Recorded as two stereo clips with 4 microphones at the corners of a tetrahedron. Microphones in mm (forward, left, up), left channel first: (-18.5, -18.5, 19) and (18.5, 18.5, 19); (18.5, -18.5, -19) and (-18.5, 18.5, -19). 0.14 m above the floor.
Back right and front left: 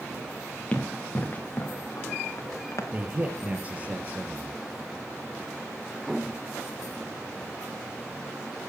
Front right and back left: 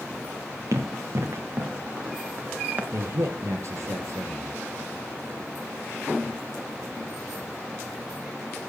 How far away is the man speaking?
About 3 m.